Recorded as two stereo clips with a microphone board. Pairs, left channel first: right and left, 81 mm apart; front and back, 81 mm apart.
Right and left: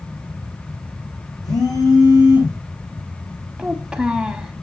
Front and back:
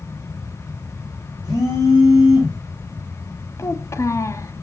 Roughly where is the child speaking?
Ahead.